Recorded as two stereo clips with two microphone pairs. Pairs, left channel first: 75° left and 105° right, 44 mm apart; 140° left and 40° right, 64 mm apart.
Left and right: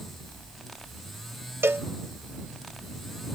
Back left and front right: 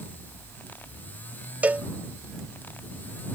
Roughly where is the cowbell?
Right.